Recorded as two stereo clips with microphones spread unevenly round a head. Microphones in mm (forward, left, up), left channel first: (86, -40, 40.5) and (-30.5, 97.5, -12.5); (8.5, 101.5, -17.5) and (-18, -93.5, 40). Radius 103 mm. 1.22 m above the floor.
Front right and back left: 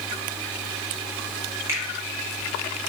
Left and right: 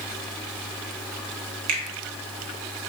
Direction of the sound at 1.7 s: 150° right.